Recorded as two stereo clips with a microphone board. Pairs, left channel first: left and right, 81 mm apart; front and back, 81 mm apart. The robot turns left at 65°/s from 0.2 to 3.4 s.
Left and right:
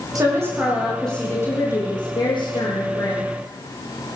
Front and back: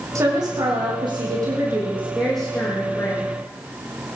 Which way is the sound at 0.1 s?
135° right.